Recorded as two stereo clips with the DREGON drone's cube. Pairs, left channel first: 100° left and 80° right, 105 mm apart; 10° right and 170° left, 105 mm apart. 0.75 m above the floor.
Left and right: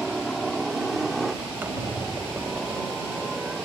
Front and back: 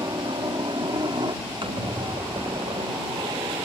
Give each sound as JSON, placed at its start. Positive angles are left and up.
{"t": 0.0, "sound": "a helicopter", "azimuth_deg": -170}
{"t": 1.6, "sound": "a squeak", "azimuth_deg": -150}